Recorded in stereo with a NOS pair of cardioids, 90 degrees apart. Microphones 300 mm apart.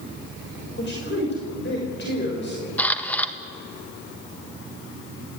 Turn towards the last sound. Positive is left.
turn(degrees=5)